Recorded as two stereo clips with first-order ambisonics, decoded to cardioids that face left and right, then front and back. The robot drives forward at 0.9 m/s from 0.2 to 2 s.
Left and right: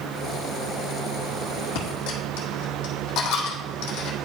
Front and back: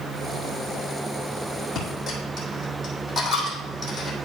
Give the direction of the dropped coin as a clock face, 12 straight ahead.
9 o'clock.